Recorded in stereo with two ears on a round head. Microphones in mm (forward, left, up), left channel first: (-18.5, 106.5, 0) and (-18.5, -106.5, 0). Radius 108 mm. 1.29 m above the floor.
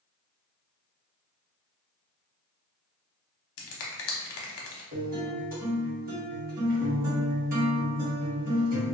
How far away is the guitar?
About 1.2 m.